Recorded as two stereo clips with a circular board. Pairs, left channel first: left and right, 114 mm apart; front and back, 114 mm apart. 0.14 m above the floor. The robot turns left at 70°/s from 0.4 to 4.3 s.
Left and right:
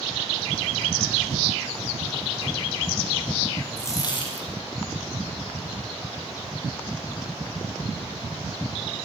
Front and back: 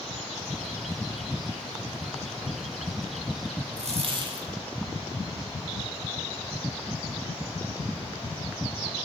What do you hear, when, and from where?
3.8 s a dropped coin: 165° left, 6 m; by 4.5 s 125° left, 6 m